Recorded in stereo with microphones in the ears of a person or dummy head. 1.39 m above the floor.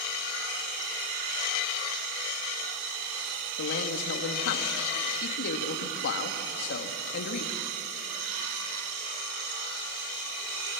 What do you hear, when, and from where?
3.6 s a man speaking: 60° left (ahead or behind), 2 m